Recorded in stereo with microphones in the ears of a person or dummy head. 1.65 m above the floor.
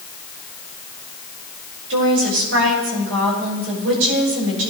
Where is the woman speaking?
85° right, 6.5 m.